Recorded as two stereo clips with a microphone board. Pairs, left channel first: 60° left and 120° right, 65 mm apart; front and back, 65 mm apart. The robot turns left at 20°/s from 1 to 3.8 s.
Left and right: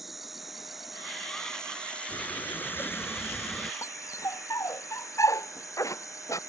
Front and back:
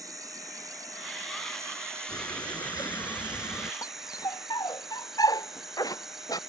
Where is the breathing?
20° left; by 3.7 s 10° right.